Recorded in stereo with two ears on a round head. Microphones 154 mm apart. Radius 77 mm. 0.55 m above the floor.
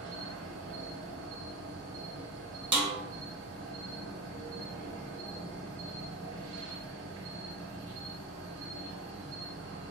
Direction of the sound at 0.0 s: 85° right.